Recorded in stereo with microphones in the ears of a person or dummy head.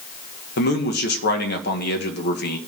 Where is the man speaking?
60° left (ahead or behind), 1.2 m.